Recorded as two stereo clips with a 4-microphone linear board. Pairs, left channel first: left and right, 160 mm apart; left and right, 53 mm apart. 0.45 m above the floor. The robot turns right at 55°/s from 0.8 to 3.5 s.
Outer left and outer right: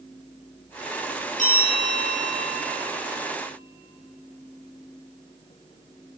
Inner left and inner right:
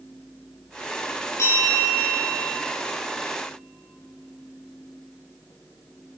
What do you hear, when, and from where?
1.4 s a bell: 50° left, 9.5 m; by 2.5 s 115° left, 9.5 m